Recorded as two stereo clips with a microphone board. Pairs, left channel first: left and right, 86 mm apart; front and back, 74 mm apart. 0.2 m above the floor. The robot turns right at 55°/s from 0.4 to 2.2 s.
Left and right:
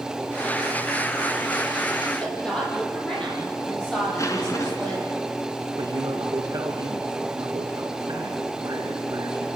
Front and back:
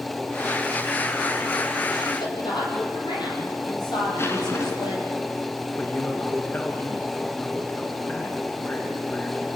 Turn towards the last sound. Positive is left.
turn(degrees=-65)